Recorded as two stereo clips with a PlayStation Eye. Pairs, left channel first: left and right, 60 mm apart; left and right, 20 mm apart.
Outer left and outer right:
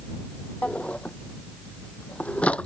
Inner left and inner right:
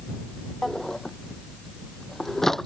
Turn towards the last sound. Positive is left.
turn(degrees=20)  # may be behind; listen again after turning